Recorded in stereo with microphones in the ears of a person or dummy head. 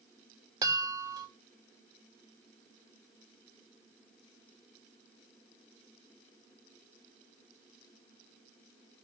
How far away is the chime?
About 2.5 m.